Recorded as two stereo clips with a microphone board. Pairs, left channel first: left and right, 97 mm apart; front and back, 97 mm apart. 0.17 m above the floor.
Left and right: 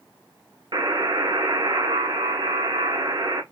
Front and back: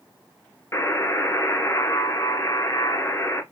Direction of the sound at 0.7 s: 55° right.